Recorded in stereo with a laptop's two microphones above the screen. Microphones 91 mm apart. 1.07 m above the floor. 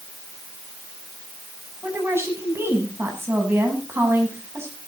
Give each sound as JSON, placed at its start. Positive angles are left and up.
{"t": 1.8, "sound": "a woman speaking", "side_deg": -25, "distance_m": 8.0}